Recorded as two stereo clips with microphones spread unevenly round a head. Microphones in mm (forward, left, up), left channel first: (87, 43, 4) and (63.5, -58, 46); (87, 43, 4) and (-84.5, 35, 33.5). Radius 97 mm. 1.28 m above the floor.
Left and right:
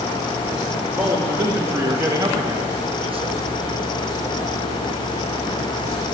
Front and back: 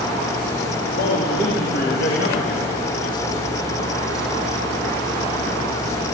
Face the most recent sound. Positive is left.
turn(degrees=-70)